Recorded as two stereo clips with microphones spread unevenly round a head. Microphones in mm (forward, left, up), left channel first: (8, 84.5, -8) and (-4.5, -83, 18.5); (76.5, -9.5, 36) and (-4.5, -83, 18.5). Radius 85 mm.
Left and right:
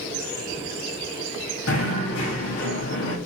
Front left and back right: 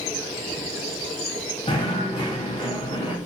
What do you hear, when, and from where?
1.7 s knocking: 105° left, 2.5 m